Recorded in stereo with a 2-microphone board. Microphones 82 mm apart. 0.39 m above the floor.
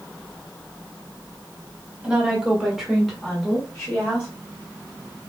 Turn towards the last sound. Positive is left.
turn(degrees=10)  # may be behind; listen again after turning